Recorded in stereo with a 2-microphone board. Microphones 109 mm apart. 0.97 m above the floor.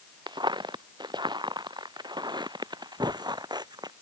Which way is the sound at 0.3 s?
45° right (ahead or behind).